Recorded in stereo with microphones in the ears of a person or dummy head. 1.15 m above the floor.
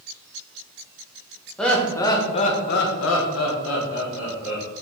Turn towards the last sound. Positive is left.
turn(degrees=65)  # may be behind; listen again after turning